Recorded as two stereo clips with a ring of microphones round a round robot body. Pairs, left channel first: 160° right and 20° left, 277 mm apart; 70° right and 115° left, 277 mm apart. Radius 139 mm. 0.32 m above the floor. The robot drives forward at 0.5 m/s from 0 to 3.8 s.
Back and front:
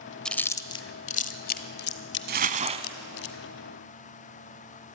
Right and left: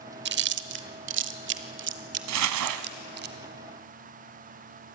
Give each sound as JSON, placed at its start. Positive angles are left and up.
{"t": 0.2, "sound": "chewing", "azimuth_deg": 115, "distance_m": 0.9}
{"t": 2.3, "sound": "crumpling", "azimuth_deg": 80, "distance_m": 1.1}